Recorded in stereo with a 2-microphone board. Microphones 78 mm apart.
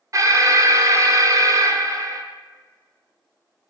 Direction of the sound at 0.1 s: 45° right (ahead or behind).